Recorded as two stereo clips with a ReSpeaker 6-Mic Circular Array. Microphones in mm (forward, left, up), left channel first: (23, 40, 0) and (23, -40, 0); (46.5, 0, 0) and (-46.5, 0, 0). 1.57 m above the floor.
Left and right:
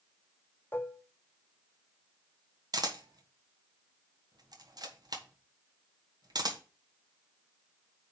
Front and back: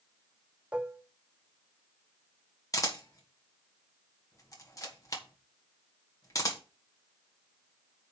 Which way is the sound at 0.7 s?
115° left.